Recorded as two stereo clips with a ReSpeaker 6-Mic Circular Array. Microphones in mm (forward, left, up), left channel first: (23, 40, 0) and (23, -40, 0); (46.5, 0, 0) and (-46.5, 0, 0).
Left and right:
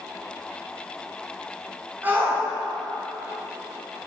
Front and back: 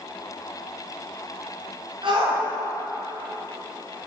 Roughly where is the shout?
Behind right.